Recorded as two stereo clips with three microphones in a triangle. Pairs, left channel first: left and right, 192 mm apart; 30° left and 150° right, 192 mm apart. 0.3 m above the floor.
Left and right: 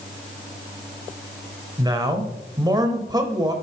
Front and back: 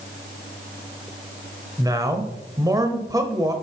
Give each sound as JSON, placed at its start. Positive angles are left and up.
{"t": 1.8, "sound": "a man speaking", "azimuth_deg": -115, "distance_m": 1.0}